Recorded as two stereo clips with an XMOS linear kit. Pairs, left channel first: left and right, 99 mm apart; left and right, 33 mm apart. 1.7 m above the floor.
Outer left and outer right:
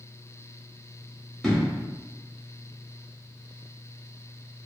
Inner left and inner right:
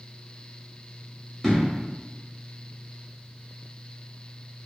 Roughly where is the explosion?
Centre.